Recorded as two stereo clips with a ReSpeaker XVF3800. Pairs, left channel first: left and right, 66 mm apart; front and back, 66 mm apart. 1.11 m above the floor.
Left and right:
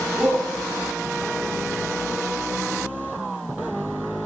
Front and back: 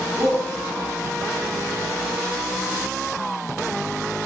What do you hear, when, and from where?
0.2 s a shout: 160° right, 3 m